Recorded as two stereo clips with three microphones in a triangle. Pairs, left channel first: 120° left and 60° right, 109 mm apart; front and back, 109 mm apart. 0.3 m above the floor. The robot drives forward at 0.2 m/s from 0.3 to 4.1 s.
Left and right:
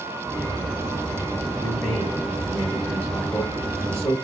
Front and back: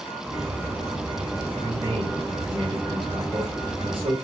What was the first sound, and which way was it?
A man speaking, 155° left.